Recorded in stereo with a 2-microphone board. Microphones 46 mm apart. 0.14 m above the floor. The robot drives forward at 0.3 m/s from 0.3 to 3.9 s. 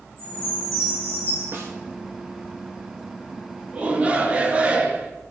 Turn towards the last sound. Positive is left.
turn(degrees=-25)  # may be behind; listen again after turning